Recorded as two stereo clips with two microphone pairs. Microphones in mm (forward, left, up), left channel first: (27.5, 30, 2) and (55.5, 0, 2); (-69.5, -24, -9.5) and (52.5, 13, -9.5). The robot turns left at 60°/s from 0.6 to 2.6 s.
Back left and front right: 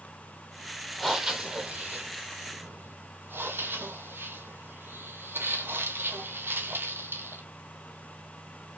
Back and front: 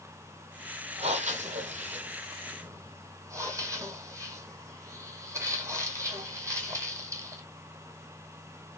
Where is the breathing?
50° left, 0.9 m; by 7.4 s 50° right, 0.9 m.